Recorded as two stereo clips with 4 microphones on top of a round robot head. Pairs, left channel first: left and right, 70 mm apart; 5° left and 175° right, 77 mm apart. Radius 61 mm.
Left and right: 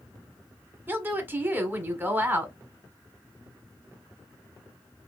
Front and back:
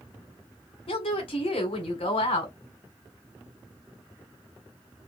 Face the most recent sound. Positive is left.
turn(degrees=-25)